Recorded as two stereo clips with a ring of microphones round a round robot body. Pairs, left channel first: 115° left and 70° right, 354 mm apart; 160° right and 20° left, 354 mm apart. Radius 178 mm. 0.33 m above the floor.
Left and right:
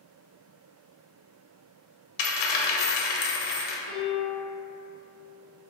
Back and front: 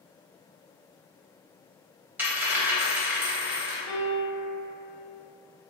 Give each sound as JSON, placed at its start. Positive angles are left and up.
{"t": 2.2, "sound": "a dropped coin", "azimuth_deg": 105, "distance_m": 0.6}
{"t": 3.9, "sound": "a piano", "azimuth_deg": -125, "distance_m": 0.8}